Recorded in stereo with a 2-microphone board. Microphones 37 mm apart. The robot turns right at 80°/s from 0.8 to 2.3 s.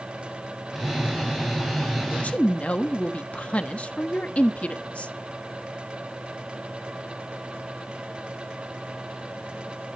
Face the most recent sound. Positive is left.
turn(degrees=35)  # may be behind; listen again after turning